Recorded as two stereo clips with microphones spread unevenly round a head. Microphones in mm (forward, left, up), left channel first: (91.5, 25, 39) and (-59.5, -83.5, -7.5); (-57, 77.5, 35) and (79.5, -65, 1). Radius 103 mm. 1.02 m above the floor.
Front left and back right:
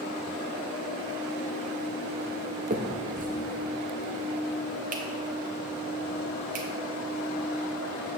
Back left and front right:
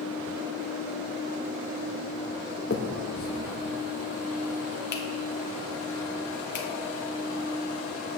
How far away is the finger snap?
About 1.3 m.